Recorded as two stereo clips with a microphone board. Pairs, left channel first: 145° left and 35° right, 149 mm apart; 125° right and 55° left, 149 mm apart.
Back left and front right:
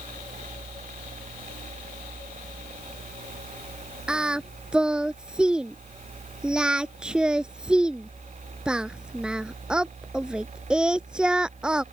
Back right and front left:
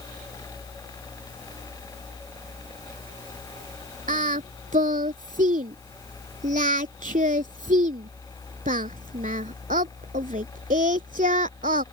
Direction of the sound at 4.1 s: 50° left.